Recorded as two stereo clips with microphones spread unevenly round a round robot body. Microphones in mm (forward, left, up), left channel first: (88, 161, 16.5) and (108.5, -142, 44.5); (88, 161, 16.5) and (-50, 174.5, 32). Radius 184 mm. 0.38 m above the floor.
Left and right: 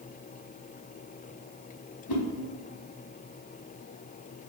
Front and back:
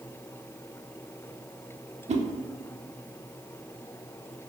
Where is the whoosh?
125° left, 0.7 m.